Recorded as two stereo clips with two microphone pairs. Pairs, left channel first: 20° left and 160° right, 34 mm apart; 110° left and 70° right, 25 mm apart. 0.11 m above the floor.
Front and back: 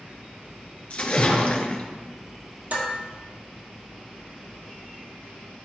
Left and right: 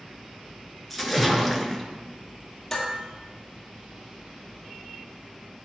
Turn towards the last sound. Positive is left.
turn(degrees=-175)